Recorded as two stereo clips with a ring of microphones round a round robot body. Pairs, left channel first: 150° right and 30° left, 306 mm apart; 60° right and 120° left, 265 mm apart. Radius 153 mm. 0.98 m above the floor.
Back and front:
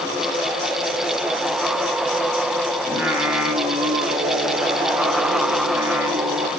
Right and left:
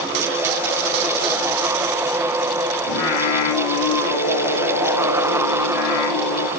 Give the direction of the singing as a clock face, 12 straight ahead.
2 o'clock.